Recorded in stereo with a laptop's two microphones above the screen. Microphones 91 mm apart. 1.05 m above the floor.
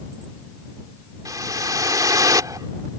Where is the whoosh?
40° right (ahead or behind).